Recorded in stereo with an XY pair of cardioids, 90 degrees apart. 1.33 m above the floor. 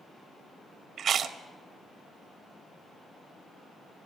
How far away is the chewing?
About 1.2 m.